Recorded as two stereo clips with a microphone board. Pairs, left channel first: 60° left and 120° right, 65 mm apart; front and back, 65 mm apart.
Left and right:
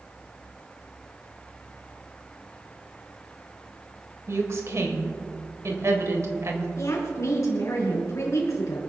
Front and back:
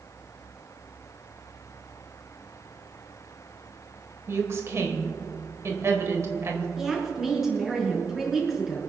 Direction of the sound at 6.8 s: 95° left.